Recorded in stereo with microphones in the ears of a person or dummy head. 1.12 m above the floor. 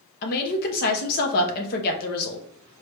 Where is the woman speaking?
50° left (ahead or behind), 1.0 m.